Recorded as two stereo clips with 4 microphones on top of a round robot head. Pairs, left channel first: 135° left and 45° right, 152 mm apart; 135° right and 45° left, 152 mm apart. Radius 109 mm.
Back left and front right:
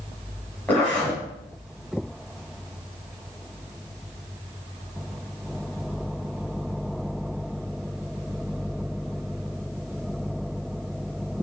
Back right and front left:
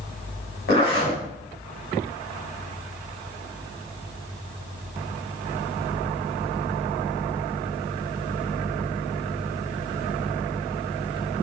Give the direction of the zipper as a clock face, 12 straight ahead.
5 o'clock.